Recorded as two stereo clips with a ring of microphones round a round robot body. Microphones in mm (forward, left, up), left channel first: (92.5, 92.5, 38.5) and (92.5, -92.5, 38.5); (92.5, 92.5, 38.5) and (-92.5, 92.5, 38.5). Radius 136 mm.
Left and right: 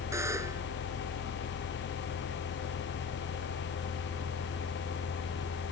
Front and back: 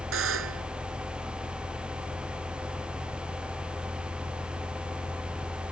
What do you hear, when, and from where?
0.1 s a buzzer: 170° right